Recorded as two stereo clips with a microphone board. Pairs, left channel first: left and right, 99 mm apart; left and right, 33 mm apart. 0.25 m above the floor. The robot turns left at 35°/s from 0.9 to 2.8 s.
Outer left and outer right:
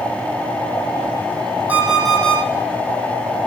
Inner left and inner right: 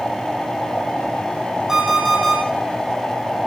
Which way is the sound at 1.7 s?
15° right (ahead or behind).